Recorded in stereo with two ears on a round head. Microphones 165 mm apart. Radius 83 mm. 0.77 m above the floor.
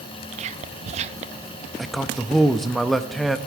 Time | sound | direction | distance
0.3 | whispering | 35° right (ahead or behind) | 0.6 m
1.8 | a man speaking | centre (ahead or behind) | 0.6 m